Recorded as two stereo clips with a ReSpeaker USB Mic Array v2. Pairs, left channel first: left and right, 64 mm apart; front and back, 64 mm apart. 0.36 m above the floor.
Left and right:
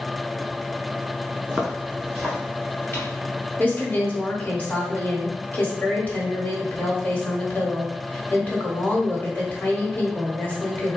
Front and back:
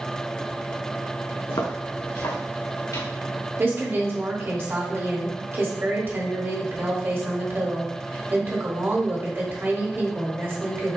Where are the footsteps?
20° right, 1.7 m; by 3.1 s 25° left, 2.5 m.